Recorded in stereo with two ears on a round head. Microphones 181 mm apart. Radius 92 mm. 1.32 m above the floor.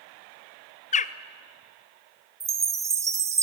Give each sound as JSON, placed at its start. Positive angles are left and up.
{"t": 0.9, "sound": "a bird", "side_deg": 35, "distance_m": 0.7}
{"t": 2.4, "sound": "a chime", "side_deg": -15, "distance_m": 1.8}